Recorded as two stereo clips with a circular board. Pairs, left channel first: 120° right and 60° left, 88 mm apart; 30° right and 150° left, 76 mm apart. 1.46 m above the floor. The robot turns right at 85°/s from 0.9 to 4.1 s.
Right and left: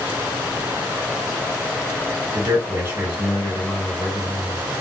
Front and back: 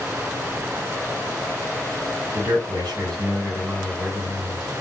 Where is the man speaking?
80° left, 1.3 m; by 4.6 s 135° right, 1.3 m.